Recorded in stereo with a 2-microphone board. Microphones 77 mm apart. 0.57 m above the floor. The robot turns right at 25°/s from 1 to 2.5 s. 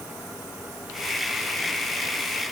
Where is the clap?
I don't hear a clap.